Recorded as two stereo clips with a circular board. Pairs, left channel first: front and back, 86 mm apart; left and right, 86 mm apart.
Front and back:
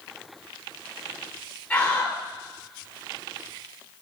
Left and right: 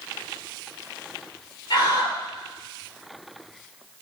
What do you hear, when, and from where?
1.7 s a scream: 75° left, 3.5 m